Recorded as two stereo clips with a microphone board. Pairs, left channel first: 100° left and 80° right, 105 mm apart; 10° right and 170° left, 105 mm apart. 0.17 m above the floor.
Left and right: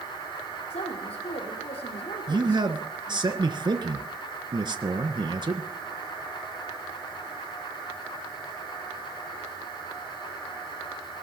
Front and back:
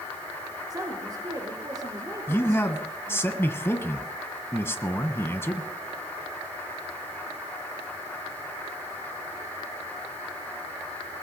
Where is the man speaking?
70° right, 1.6 m.